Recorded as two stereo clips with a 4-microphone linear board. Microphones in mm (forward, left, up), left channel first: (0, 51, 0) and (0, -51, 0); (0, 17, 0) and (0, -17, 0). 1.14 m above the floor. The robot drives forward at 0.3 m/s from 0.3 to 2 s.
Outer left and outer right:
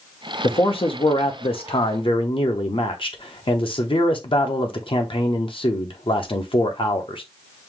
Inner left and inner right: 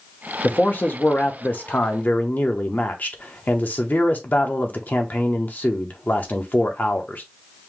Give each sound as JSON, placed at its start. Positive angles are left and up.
{"t": 0.4, "sound": "a man speaking", "side_deg": 55, "distance_m": 0.8}